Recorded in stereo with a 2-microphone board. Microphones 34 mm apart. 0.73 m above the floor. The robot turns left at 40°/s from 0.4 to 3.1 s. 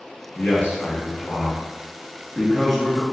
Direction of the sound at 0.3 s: 95° left.